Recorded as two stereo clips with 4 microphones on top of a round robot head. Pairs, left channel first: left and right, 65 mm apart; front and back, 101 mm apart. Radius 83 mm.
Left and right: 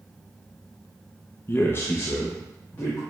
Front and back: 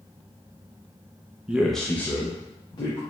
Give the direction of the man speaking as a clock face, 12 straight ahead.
8 o'clock.